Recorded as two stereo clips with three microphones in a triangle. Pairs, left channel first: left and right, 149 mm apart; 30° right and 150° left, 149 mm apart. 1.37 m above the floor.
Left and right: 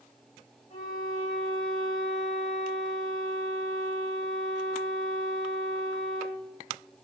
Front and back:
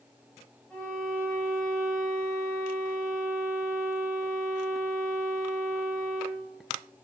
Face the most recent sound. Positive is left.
turn(degrees=50)